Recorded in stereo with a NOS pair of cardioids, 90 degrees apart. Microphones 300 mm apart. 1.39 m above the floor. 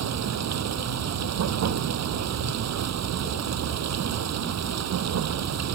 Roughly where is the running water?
Ahead right.